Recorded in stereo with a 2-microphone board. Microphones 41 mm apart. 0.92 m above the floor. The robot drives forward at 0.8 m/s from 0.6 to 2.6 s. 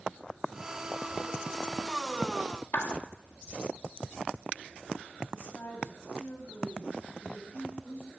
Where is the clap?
65° left (ahead or behind), 1.6 m.